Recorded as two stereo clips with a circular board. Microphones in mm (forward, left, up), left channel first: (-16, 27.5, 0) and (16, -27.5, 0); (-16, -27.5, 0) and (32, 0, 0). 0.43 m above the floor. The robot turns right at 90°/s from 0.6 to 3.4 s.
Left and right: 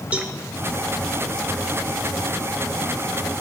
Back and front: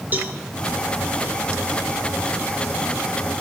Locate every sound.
0.1 s a cowbell: 5° right, 1.4 m